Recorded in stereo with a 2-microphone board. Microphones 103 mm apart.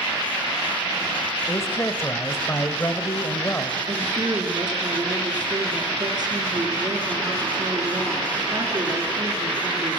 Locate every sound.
1.5 s a man speaking: 25° left (ahead or behind), 1.9 m
3.9 s a woman speaking: 40° right (ahead or behind), 6 m